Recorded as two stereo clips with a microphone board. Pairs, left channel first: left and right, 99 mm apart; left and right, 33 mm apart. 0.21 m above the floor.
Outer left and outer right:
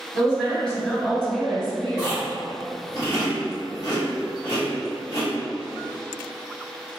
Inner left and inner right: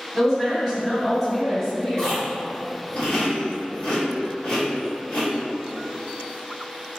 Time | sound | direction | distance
0.1 | a woman speaking | 10° left (ahead or behind) | 1.6 m
2.0 | chewing | 35° left (ahead or behind) | 1.8 m